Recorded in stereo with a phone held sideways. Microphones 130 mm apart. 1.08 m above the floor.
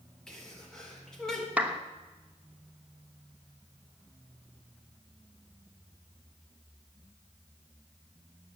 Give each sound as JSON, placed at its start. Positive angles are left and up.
{"t": 0.3, "sound": "a sneeze", "side_deg": 5, "distance_m": 4.0}
{"t": 1.6, "sound": "a clap", "side_deg": -10, "distance_m": 1.1}